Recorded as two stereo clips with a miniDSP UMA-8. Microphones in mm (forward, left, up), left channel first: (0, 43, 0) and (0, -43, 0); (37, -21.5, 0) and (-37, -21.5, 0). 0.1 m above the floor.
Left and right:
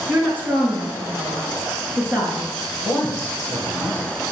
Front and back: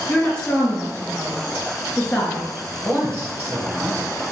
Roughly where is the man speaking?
Behind right.